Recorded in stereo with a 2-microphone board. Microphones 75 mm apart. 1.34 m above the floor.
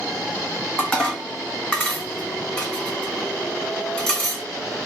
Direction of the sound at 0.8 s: 15° left (ahead or behind).